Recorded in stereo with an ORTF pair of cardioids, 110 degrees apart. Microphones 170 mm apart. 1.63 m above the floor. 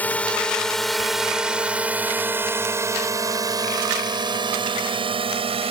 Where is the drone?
10° left; by 5.7 s 35° right.